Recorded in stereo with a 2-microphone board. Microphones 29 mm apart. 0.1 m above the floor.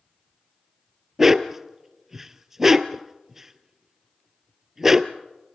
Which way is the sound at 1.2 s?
15° right (ahead or behind).